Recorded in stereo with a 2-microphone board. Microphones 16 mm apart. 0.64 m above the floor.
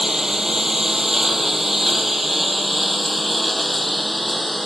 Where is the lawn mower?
25° right (ahead or behind); by 4.7 s 5° left (ahead or behind).